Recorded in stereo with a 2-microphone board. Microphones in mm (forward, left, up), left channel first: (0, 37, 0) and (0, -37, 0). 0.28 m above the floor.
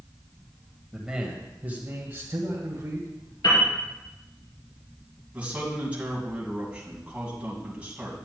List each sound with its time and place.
0.9 s a man speaking: 5° right (ahead or behind), 1.5 m; by 3.1 s 45° right (ahead or behind), 2.0 m
3.4 s a piano: 75° left (ahead or behind), 4 m
5.3 s a man speaking: 20° right (ahead or behind), 2.5 m